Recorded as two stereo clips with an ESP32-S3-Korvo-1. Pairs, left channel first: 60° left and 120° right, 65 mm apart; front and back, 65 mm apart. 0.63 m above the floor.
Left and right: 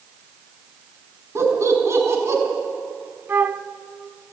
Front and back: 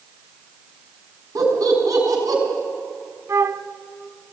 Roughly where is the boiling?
No boiling in this recording.